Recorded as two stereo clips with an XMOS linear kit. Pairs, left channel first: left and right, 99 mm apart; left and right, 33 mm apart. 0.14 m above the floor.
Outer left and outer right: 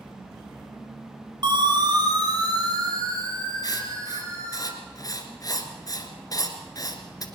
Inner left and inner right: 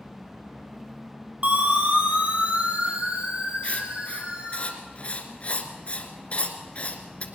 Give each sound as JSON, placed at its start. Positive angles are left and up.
{"t": 1.4, "sound": "a siren", "side_deg": -45, "distance_m": 3.0}
{"t": 3.6, "sound": "writing", "side_deg": 40, "distance_m": 1.8}